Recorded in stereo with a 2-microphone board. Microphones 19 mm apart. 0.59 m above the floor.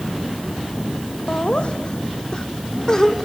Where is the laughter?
55° left (ahead or behind), 2 m; by 3.3 s 20° left (ahead or behind), 1.9 m.